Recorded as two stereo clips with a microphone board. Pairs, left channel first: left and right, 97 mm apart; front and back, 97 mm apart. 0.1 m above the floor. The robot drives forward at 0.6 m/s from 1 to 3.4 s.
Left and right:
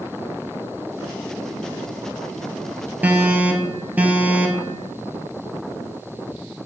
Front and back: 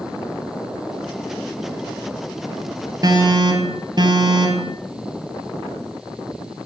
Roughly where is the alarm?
Behind right.